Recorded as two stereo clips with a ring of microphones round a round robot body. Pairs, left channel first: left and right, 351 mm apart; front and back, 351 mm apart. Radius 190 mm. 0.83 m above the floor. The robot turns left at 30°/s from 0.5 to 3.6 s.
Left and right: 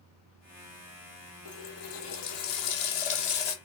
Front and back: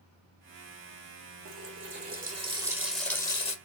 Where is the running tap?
135° left, 1.5 m; by 3.5 s 75° left, 1.5 m.